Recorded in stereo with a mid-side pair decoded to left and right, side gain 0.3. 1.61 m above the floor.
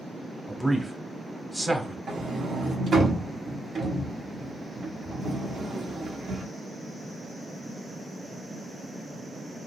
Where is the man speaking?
20° right, 0.9 m.